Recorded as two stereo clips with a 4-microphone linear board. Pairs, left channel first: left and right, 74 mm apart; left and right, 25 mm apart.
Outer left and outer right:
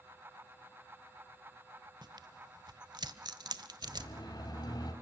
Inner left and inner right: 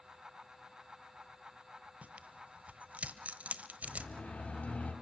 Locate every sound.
2.0 s tearing paper: 70° right (ahead or behind), 1.1 m
3.8 s a siren: 75° left (ahead or behind), 5.5 m; by 4.9 s 65° left (ahead or behind), 4.5 m